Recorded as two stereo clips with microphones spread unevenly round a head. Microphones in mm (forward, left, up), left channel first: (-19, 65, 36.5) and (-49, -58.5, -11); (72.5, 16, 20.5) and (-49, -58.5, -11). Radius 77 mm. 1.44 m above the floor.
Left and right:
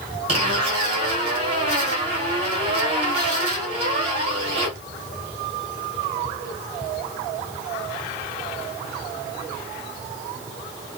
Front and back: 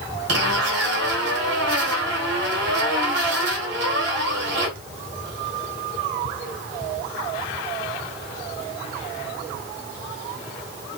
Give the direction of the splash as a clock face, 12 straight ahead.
No splash in this recording.